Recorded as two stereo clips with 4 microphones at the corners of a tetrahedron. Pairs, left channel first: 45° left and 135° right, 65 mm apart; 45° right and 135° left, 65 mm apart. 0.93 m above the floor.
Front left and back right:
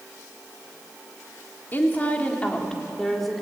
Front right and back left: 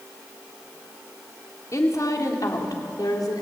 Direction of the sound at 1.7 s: 10° right.